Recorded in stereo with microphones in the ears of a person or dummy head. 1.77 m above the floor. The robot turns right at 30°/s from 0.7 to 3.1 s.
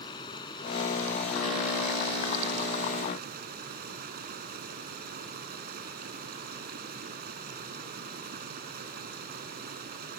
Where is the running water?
155° left; by 10.2 s 130° right.